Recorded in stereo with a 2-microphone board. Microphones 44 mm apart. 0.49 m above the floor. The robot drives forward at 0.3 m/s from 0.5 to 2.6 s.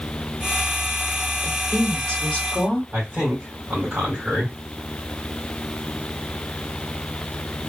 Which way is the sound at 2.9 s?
35° right (ahead or behind).